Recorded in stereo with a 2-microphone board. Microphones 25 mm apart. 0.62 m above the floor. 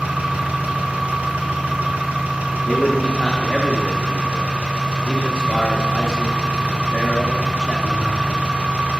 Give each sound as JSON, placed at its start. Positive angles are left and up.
{"t": 0.0, "sound": "an engine running", "side_deg": -75, "distance_m": 1.8}
{"t": 2.6, "sound": "a man speaking", "side_deg": 20, "distance_m": 0.9}